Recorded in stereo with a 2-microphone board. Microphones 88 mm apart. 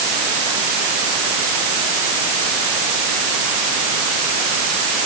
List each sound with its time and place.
Only background noise.